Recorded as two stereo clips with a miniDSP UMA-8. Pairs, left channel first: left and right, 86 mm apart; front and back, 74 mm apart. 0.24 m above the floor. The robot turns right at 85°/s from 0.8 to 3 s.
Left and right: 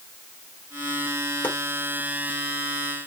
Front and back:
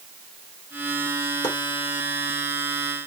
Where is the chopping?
20° left, 1.5 m; by 1.6 s 30° left, 1.5 m.